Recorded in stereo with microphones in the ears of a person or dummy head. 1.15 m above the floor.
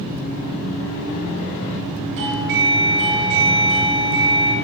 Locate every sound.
2.2 s a doorbell: 65° right (ahead or behind), 7 m